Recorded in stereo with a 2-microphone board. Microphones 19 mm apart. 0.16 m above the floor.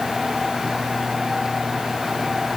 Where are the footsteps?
No footsteps in this recording.